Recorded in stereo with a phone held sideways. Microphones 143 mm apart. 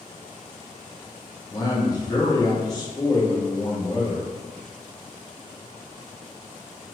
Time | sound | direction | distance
1.5 | a man speaking | 30° left (ahead or behind) | 0.9 m